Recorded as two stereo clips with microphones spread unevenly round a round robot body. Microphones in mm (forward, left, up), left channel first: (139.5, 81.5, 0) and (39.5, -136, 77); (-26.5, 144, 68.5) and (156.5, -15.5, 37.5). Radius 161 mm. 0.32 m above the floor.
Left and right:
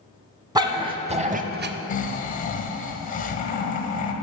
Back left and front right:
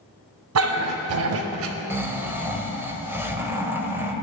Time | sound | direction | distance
0.6 | a dog barking | 35° right | 1.1 m
1.9 | snoring | 35° left | 1.1 m